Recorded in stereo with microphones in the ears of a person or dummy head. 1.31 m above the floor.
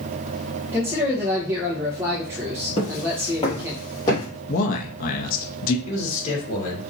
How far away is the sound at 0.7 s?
About 0.8 m.